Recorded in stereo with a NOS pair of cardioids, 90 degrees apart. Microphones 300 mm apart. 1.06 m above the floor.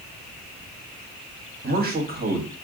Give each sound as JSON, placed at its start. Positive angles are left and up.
{"t": 1.6, "sound": "a man speaking", "azimuth_deg": -30, "distance_m": 1.4}